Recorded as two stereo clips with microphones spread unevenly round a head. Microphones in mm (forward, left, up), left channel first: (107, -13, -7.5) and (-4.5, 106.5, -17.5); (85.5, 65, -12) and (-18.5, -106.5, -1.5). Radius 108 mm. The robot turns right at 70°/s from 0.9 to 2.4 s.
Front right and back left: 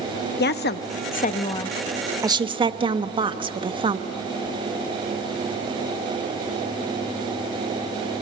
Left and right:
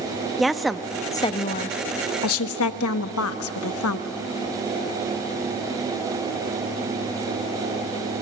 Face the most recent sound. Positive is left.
turn(degrees=75)